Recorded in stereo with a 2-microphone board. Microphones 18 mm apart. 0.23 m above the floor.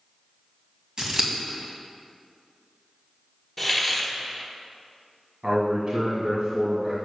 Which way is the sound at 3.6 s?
5° left (ahead or behind).